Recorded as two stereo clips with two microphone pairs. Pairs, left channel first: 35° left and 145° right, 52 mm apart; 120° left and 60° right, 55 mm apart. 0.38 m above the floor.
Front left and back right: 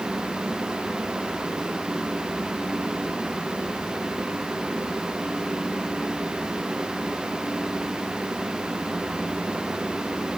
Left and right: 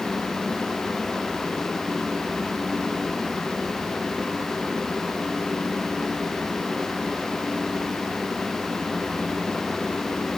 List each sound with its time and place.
Only background noise.